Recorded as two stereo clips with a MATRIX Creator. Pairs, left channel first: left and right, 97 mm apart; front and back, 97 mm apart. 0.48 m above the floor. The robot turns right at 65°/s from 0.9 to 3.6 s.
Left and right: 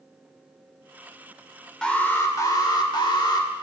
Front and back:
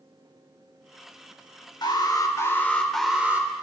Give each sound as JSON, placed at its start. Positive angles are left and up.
{"t": 1.8, "sound": "an alarm", "azimuth_deg": 10, "distance_m": 1.9}